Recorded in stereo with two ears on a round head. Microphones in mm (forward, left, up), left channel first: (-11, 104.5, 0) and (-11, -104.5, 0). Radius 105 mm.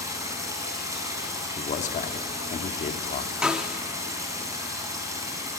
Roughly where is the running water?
Centre.